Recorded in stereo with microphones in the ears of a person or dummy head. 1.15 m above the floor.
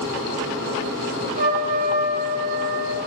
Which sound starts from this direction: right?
A trumpet, at 1.4 s.